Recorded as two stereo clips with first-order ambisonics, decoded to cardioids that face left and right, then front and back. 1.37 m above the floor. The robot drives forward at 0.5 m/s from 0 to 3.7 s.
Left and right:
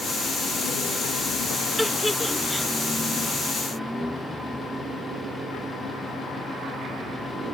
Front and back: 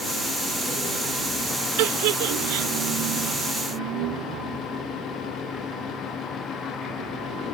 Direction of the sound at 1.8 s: 175° left.